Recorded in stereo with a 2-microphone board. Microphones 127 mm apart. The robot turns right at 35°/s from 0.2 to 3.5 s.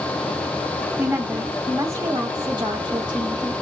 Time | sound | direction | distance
1.0 | a woman speaking | 150° right | 1.7 m